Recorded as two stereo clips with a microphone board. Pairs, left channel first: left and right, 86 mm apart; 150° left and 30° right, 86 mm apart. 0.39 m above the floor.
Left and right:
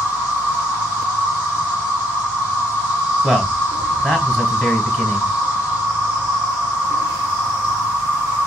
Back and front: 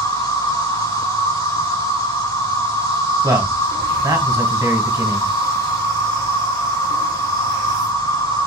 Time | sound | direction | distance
0.0 | an insect | 165° right | 3 m
3.2 | a man speaking | 5° right | 2 m